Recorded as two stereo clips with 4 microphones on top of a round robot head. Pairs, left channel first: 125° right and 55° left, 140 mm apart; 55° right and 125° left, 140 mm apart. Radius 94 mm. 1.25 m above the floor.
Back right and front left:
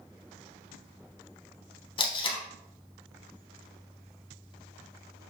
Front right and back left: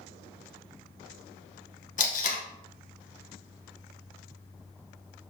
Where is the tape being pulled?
75° right, 1.5 m.